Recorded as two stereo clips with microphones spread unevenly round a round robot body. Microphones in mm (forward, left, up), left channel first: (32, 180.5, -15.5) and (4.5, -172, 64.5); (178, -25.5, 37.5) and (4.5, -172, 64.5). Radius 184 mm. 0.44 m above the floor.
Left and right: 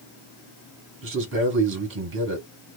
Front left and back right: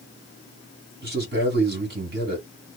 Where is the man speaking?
145° right, 1.3 m.